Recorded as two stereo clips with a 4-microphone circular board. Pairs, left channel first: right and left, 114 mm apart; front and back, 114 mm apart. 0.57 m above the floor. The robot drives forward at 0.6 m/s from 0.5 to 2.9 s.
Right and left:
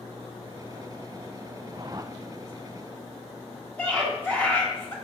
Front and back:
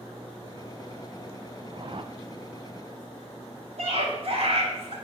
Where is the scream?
165° right, 4 m.